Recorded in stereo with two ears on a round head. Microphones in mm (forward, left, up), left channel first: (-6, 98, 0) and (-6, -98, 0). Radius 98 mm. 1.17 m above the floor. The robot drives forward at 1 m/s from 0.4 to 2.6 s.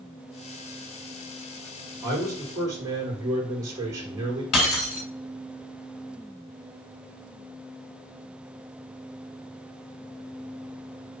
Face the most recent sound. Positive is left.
turn(degrees=80)